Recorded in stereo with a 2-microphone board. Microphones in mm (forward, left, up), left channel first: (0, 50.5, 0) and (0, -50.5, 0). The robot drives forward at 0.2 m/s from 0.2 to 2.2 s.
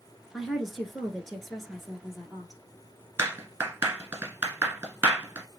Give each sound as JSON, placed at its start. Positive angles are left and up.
{"t": 0.3, "sound": "a woman speaking", "side_deg": 0, "distance_m": 1.5}
{"t": 3.2, "sound": "a clap", "side_deg": -20, "distance_m": 1.3}